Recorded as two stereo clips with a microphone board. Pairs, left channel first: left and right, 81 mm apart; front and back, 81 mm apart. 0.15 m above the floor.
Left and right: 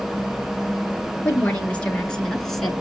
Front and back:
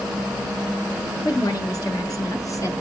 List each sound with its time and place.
1.2 s a woman speaking: 25° left, 2.5 m; by 2.8 s straight ahead, 1.7 m